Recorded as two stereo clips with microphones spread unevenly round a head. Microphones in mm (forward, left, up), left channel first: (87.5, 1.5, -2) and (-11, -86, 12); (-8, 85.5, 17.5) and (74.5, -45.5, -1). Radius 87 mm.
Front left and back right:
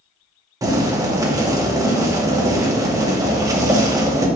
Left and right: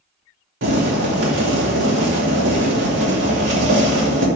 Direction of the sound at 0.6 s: 70° right.